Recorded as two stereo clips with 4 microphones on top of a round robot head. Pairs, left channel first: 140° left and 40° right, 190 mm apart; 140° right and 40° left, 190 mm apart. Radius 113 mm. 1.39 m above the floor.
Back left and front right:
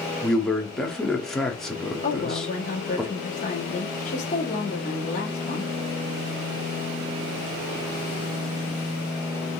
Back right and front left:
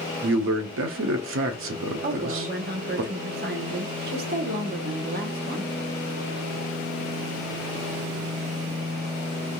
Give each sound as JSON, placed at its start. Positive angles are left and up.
{"t": 0.2, "sound": "a man speaking", "azimuth_deg": 50, "distance_m": 0.7}
{"t": 2.0, "sound": "a woman speaking", "azimuth_deg": 85, "distance_m": 1.0}